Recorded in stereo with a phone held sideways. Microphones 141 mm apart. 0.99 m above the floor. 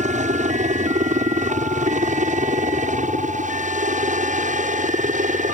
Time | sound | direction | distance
0.0 | a helicopter | 60° right (ahead or behind) | ?